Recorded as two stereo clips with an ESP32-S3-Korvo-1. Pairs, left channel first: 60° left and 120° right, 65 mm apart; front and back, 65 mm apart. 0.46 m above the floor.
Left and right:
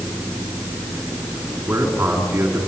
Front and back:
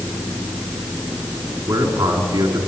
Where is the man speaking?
Straight behind, 5 m.